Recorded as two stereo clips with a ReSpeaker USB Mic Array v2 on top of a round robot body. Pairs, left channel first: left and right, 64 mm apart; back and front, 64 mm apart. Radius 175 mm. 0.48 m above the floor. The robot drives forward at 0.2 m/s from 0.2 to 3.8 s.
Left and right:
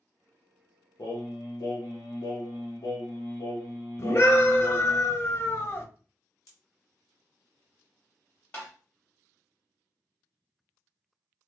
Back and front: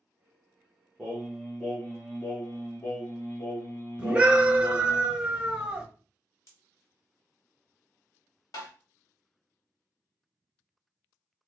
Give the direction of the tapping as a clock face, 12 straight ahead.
7 o'clock.